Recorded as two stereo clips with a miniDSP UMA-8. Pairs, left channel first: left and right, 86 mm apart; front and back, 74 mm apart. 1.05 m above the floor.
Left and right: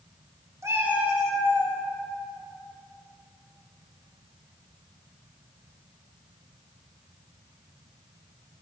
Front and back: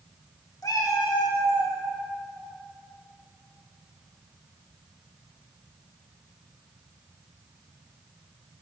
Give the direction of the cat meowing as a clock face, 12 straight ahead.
1 o'clock.